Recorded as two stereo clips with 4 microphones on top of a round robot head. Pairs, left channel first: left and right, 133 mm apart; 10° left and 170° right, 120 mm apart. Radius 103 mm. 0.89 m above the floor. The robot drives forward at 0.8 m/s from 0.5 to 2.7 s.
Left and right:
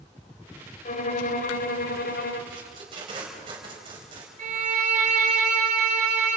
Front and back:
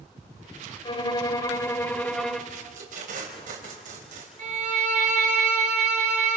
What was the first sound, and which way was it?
A violin, 60° left.